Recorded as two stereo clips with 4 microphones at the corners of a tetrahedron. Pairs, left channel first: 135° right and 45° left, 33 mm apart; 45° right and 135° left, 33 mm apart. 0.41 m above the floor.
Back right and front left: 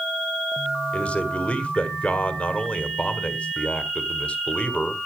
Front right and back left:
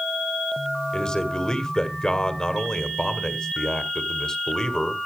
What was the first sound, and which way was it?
A man speaking, 105° right.